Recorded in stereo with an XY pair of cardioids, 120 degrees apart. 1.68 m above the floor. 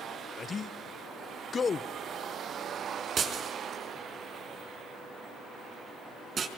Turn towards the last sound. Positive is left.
turn(degrees=-40)